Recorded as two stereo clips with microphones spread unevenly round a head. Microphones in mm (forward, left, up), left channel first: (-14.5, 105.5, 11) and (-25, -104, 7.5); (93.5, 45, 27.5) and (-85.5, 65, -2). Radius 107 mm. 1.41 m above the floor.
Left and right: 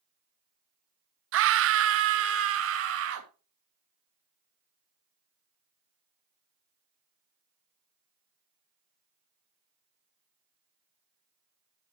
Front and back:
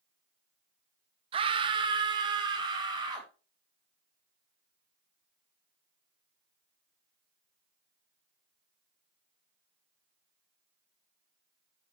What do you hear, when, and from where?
1.3 s a scream: 120° right, 0.7 m; by 3.3 s 115° right, 2.5 m